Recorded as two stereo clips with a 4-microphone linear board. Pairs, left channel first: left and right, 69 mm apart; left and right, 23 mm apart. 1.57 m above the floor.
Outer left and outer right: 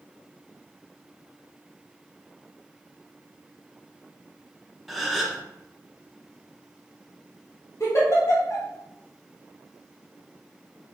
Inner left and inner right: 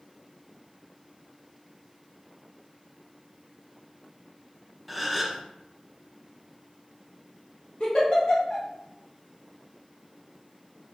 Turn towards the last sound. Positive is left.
turn(degrees=45)  # may be behind; listen again after turning